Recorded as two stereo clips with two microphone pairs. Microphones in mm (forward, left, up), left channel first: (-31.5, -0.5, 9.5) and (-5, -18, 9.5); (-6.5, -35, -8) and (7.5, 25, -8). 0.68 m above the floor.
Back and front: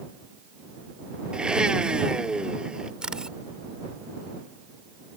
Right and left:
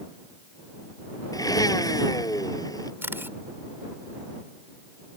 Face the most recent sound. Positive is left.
turn(degrees=30)